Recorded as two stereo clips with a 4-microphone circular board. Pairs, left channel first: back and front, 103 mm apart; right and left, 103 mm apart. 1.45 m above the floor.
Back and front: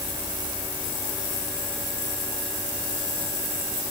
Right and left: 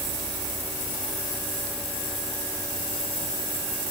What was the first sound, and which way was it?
Only background noise.